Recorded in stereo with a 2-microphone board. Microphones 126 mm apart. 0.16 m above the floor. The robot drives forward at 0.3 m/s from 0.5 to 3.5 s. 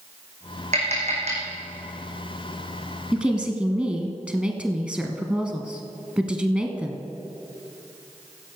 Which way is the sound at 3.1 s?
10° right (ahead or behind).